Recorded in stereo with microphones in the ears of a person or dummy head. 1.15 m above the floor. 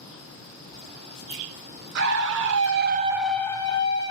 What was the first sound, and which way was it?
A scream, 55° right (ahead or behind).